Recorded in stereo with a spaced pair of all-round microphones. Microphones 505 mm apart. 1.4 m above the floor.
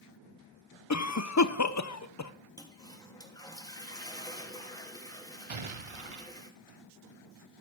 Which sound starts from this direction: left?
A cough, at 0.9 s.